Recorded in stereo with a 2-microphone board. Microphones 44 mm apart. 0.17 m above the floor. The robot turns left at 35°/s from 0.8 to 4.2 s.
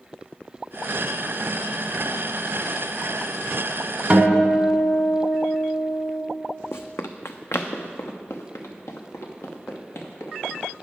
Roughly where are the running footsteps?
Left.